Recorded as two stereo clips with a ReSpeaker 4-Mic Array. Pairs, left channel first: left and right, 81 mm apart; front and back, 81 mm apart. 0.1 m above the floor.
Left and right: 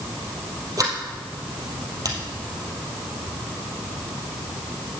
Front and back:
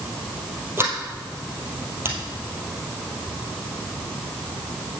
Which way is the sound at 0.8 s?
125° right.